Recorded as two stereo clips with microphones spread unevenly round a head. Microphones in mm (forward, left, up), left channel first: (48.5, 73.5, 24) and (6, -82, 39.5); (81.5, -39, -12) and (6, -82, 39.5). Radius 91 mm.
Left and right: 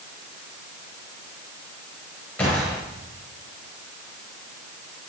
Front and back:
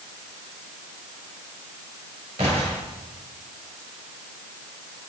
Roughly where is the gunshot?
Behind.